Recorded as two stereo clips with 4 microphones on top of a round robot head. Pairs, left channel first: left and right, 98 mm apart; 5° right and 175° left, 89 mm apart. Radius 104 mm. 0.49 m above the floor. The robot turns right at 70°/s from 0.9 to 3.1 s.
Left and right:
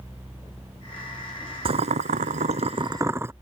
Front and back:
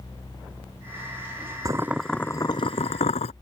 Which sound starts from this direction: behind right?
Boiling, at 1.6 s.